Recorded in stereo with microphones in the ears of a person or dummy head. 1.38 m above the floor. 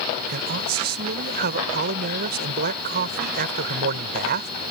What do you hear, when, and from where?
0.3 s a man speaking: 60° right (ahead or behind)